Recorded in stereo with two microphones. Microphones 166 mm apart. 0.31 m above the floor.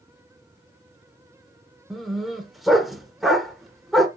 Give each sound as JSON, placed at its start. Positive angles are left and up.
{"t": 1.9, "sound": "a dog barking", "side_deg": 0, "distance_m": 1.1}